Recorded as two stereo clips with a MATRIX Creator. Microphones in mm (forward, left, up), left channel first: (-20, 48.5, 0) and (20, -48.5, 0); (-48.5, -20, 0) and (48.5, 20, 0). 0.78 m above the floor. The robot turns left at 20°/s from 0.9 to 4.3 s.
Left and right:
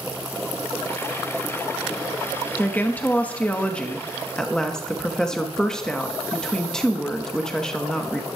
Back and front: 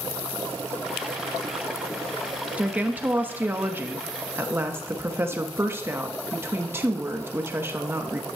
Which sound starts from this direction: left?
A woman speaking, at 2.6 s.